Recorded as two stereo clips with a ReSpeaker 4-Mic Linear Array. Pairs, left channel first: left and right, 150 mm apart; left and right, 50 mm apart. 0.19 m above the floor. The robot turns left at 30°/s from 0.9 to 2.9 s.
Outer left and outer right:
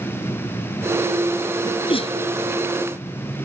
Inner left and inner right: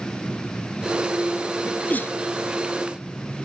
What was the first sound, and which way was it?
A sneeze, 30° left (ahead or behind).